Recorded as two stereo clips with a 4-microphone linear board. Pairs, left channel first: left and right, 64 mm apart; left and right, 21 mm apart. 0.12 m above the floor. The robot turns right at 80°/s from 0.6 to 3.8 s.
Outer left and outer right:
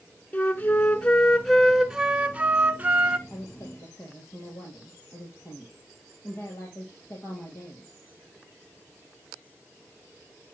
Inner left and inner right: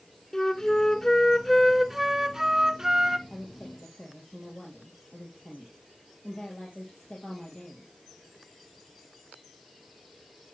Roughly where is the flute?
Left.